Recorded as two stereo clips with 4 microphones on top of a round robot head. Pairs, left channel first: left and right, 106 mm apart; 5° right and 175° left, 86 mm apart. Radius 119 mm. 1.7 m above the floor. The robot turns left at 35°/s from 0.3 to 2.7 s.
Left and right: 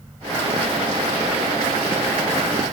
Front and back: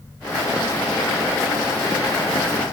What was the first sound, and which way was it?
Only background noise.